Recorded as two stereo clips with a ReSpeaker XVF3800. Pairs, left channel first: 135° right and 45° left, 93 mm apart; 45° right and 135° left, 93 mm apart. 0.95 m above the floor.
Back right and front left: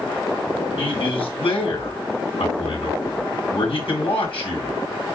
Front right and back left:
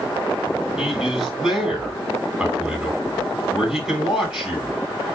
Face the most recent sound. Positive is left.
turn(degrees=-140)